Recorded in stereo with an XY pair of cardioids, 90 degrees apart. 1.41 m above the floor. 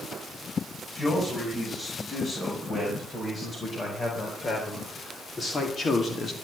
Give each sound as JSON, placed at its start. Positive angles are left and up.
{"t": 0.9, "sound": "a man speaking", "azimuth_deg": 40, "distance_m": 8.5}